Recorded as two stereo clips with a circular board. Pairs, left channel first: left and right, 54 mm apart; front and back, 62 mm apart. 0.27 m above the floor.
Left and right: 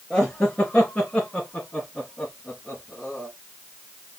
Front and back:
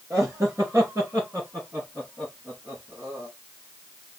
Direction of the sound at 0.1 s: 155° left.